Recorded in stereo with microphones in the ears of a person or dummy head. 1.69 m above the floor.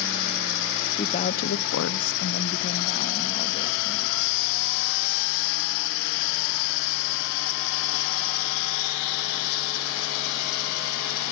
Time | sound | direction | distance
0.9 | a woman speaking | 30° left (ahead or behind) | 1.1 m